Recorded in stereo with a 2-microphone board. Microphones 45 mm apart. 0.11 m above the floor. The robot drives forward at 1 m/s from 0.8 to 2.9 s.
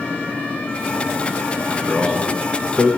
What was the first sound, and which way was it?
A man speaking, 20° left (ahead or behind).